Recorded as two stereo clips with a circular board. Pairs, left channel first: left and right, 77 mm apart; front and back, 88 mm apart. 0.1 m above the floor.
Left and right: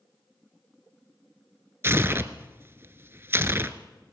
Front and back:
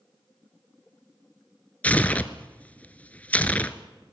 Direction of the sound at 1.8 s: 60° right.